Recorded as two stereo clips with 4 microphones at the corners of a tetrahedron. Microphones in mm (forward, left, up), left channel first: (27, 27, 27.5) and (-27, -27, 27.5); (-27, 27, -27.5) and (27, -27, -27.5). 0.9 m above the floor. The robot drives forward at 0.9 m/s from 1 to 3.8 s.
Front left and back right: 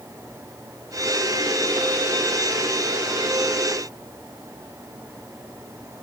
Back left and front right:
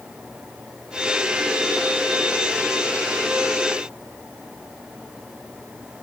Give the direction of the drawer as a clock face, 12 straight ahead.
I don't hear a drawer.